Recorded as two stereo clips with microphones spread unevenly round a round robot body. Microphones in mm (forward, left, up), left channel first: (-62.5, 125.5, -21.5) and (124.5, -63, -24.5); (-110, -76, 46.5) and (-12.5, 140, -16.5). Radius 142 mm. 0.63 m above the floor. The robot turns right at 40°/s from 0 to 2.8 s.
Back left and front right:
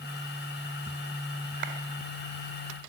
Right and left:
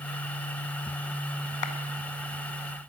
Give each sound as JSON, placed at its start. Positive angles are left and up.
{"t": 1.6, "sound": "a clap", "azimuth_deg": -100, "distance_m": 2.0}